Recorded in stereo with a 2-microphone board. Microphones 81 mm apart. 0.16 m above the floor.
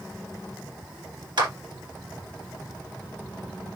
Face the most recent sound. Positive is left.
turn(degrees=-70)  # may be behind; listen again after turning